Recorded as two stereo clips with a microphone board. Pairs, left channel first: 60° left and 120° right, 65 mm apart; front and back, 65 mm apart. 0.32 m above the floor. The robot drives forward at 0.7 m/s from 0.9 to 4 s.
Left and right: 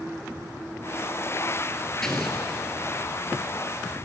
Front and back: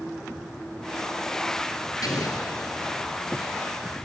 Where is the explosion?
25° right, 4 m.